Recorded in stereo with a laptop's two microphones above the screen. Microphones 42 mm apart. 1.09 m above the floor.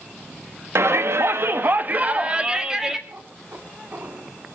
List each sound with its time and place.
0.8 s a shout: 90° right, 1.2 m; by 3.0 s 10° right (ahead or behind), 1.7 m
3.1 s a cat meowing: 50° right (ahead or behind), 2 m